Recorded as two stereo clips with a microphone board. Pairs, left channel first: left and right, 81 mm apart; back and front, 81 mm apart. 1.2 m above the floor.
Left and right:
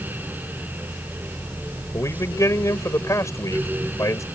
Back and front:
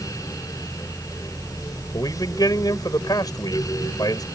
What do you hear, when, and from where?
1.9 s a man speaking: 140° left